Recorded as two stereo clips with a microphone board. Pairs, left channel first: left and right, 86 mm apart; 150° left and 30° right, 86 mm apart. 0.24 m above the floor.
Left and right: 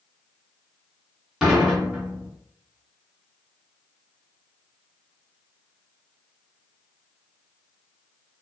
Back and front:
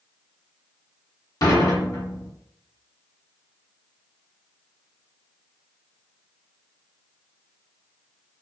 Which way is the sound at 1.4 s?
175° right.